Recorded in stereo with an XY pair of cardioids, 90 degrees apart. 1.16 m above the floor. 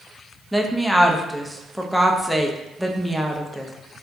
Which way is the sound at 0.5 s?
Straight ahead.